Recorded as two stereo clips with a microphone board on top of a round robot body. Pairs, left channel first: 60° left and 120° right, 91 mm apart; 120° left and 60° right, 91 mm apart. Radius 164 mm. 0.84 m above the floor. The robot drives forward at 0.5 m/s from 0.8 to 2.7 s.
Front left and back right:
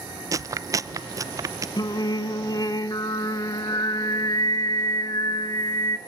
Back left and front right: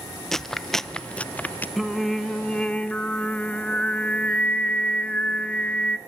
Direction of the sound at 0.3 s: 155° right.